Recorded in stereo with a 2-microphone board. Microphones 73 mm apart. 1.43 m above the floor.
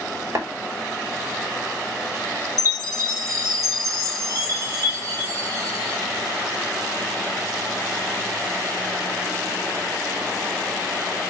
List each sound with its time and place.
0.3 s tapping: 45° right (ahead or behind), 5 m
2.6 s a chime: 55° right (ahead or behind), 6.5 m